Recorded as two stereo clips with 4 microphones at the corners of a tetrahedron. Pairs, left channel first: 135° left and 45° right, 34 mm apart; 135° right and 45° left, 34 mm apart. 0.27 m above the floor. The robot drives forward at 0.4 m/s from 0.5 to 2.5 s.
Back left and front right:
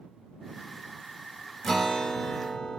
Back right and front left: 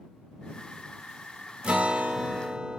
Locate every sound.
1.6 s a guitar: 60° left, 0.8 m; by 2.8 s 110° left, 0.7 m